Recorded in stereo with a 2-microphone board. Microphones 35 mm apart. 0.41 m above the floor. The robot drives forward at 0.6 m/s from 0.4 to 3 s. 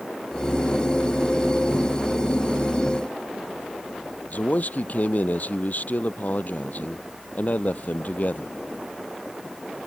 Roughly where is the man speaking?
Left.